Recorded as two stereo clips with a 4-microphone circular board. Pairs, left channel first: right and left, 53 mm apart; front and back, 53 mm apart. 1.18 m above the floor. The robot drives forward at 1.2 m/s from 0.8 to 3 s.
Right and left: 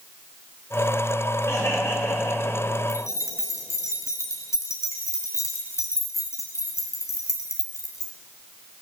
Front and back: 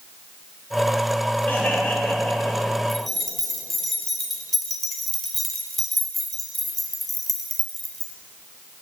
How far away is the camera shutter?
I don't hear a camera shutter.